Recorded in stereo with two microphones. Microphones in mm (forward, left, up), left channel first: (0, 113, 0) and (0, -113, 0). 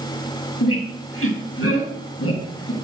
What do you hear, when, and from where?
0.6 s a squeak: 75° left (ahead or behind), 2 m